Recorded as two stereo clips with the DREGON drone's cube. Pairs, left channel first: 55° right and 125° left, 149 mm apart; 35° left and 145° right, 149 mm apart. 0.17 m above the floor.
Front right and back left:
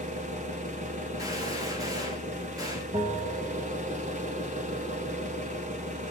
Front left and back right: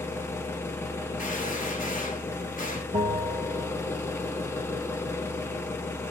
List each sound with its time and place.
0.0 s an engine running: 105° left, 1.2 m
1.2 s a gunshot: 60° left, 2 m
2.9 s a bell: 175° right, 0.9 m